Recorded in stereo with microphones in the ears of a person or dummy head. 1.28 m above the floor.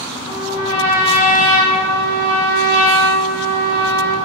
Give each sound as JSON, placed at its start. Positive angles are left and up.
{"t": 0.3, "sound": "a trumpet", "side_deg": -35, "distance_m": 1.0}